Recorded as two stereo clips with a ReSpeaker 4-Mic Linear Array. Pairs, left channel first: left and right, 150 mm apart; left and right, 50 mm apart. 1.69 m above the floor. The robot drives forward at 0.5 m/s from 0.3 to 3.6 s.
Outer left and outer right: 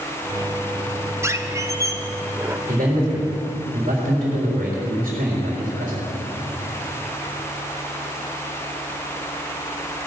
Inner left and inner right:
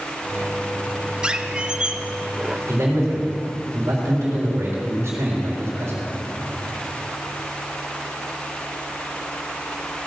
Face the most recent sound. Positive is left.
turn(degrees=-65)  # may be behind; listen again after turning